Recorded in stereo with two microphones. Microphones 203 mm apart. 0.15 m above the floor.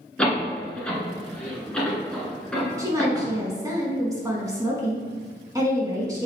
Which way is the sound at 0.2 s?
5° left (ahead or behind).